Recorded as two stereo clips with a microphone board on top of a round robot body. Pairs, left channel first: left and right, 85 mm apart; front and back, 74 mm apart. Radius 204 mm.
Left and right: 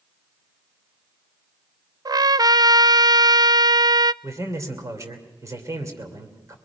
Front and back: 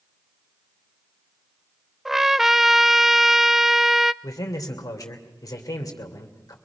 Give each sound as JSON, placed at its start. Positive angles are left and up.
{"t": 2.0, "sound": "a trumpet", "azimuth_deg": -95, "distance_m": 0.6}
{"t": 4.2, "sound": "a man speaking", "azimuth_deg": -40, "distance_m": 2.5}